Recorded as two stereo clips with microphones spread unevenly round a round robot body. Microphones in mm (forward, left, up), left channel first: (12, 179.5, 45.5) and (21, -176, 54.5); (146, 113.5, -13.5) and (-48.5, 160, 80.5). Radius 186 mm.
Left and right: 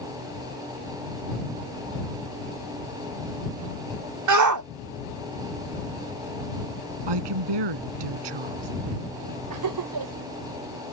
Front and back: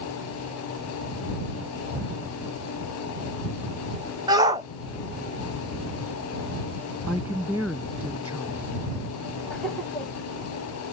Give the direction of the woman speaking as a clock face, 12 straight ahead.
3 o'clock.